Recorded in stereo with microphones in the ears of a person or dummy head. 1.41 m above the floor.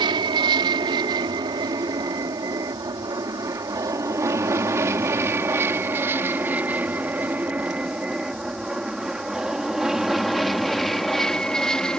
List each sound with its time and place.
0.0 s an aircraft: 25° right (ahead or behind); by 12.0 s 5° left (ahead or behind)